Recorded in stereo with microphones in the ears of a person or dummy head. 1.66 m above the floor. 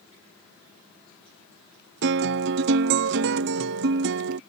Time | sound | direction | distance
2.0 | a guitar | 55° right (ahead or behind) | ?